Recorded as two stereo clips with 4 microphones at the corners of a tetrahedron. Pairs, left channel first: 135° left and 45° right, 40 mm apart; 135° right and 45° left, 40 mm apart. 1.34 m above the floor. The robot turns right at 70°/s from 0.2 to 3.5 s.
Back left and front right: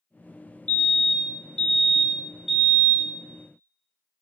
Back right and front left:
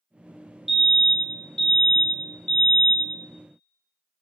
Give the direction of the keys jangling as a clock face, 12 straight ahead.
No keys jangling in this recording.